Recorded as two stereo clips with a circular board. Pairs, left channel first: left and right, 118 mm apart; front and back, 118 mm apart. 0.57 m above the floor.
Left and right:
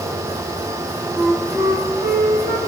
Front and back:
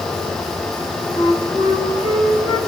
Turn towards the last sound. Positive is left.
turn(degrees=-15)